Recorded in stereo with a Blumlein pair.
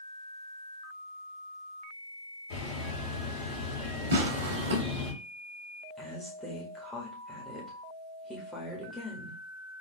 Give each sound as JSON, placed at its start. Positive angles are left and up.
{"t": 2.5, "sound": "a bird", "azimuth_deg": 55, "distance_m": 2.5}
{"t": 4.1, "sound": "tearing paper", "azimuth_deg": -60, "distance_m": 1.3}
{"t": 6.0, "sound": "a woman speaking", "azimuth_deg": 0, "distance_m": 1.8}